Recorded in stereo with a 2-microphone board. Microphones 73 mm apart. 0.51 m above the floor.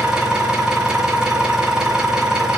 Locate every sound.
0.0 s an engine running: 10° right (ahead or behind), 2.5 m